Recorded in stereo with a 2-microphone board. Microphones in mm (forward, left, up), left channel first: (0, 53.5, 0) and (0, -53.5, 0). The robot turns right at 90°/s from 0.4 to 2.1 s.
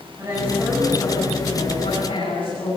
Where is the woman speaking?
25° right, 9 m; by 2.8 s 125° left, 9 m.